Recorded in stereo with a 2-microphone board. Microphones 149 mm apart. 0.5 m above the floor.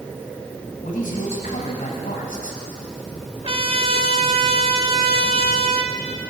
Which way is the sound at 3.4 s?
40° right (ahead or behind).